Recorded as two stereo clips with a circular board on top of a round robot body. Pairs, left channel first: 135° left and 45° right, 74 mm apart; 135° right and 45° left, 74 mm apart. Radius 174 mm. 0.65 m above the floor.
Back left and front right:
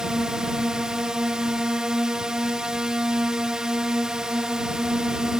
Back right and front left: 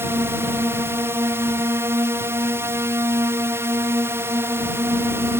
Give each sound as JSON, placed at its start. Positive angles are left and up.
{"t": 0.0, "sound": "a drone", "azimuth_deg": 30}